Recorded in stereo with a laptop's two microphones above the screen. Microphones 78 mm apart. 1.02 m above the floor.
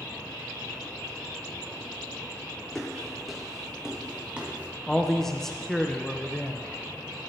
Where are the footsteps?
5° left (ahead or behind), 3 m; by 4.7 s 20° right (ahead or behind), 2.5 m.